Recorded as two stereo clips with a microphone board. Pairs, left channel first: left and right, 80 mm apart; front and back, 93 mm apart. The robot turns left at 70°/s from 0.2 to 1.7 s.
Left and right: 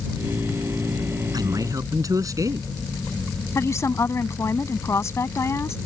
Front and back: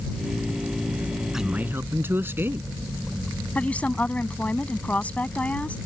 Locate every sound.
1.3 s a man speaking: 95° right; by 2.7 s 120° right
3.5 s a woman speaking: 65° left